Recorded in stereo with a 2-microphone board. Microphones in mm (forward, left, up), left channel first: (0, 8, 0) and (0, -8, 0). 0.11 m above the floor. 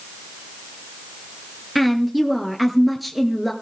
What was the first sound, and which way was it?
A woman speaking, centre (ahead or behind).